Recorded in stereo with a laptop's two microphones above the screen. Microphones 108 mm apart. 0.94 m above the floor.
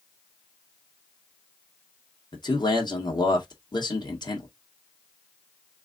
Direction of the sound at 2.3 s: 40° left (ahead or behind).